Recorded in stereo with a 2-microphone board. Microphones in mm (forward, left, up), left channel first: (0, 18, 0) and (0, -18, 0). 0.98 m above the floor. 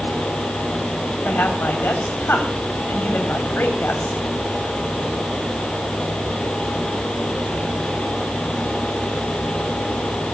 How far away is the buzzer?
I don't hear a buzzer.